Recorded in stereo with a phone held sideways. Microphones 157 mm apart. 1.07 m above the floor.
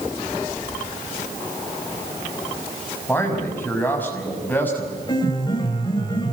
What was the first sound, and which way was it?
A man speaking, 10° left (ahead or behind).